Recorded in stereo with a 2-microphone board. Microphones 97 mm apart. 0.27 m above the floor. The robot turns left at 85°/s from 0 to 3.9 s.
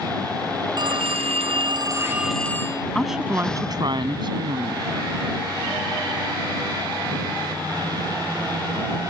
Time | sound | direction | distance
0.8 | a phone ringing | 45° right | ?
3.0 | a woman speaking | 10° left | ?